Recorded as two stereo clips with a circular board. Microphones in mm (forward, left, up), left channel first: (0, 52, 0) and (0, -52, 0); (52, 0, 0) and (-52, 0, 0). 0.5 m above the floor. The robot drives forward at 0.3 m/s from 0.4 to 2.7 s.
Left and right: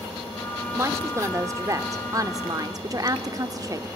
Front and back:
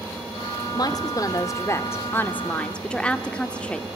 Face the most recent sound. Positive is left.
turn(degrees=-75)